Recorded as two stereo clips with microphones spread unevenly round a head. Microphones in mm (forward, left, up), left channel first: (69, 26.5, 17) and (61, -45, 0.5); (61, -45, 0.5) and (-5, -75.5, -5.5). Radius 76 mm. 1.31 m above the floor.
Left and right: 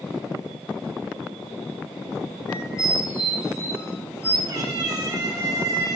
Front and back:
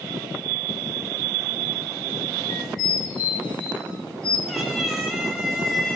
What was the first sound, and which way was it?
A squeak, 35° left.